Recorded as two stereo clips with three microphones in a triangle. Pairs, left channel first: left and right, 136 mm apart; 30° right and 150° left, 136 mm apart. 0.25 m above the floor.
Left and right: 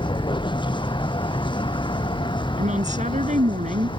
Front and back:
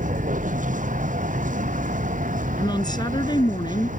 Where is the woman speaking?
85° right.